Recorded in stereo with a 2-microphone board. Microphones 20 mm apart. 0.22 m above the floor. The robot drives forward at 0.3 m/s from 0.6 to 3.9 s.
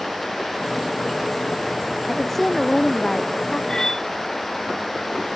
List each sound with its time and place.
2.1 s a woman speaking: 10° left (ahead or behind)
3.7 s cutlery clinking: 25° left (ahead or behind)